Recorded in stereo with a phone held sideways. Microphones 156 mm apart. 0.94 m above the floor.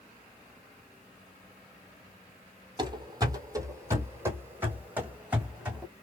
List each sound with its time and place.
2.8 s running footsteps: 30° right (ahead or behind), 1.2 m; by 5.8 s 5° right (ahead or behind), 2.5 m